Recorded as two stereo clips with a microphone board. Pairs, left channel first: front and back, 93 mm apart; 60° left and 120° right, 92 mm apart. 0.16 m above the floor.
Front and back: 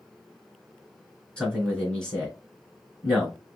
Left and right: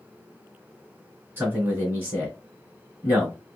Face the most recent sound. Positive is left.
turn(degrees=-70)